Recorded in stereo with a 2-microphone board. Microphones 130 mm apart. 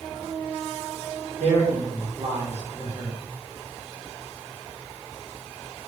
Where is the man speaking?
65° right (ahead or behind), 1.2 m.